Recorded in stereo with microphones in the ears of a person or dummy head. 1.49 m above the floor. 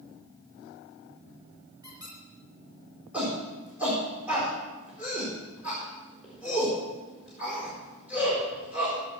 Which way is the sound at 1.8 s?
20° right (ahead or behind).